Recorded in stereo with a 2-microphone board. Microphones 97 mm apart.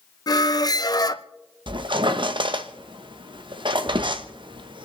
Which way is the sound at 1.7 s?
60° right (ahead or behind).